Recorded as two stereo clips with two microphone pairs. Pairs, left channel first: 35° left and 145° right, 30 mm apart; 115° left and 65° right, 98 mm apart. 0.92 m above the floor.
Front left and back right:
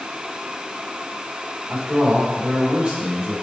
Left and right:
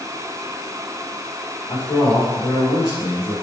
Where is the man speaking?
165° left, 2.5 m.